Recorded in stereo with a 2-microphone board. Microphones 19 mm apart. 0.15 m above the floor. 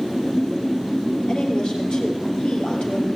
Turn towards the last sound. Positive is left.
turn(degrees=50)  # may be behind; listen again after turning